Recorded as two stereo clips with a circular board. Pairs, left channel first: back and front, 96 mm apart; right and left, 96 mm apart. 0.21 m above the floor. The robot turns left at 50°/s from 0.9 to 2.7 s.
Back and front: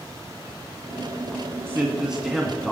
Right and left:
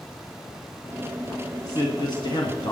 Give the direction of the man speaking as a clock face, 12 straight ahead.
2 o'clock.